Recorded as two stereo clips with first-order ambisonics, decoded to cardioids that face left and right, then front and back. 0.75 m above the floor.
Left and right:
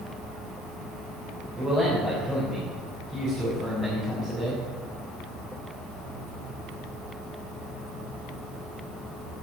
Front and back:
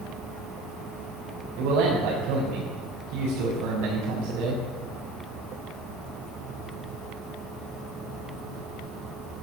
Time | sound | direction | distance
1.6 | a man speaking | 165° right | 3.5 m